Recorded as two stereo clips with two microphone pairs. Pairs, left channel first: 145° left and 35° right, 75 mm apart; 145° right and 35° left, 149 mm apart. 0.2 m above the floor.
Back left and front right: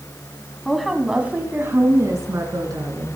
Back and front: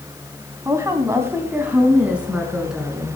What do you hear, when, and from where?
0.7 s a woman speaking: 65° left, 1.7 m; by 3.2 s 55° right, 3 m